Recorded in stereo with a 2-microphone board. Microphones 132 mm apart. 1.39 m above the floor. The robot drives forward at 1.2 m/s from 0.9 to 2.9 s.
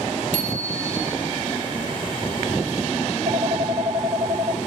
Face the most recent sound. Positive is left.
turn(degrees=-65)  # may be behind; listen again after turning